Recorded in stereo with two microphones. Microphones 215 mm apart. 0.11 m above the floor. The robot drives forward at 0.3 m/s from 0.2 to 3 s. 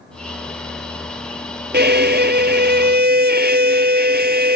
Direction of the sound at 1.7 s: 50° right (ahead or behind).